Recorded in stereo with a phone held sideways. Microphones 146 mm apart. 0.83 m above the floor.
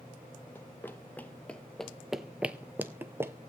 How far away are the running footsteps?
About 1.2 m.